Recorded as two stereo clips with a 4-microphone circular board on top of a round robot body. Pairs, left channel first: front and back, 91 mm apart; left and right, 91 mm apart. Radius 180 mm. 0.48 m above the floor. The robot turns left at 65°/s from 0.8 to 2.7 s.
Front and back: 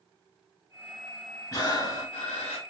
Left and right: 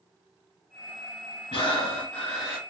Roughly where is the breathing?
Ahead left.